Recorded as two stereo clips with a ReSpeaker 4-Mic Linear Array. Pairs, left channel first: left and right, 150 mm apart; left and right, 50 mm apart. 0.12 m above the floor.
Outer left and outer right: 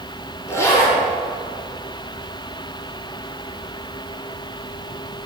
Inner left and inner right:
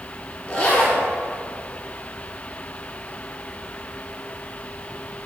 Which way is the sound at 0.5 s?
20° left (ahead or behind).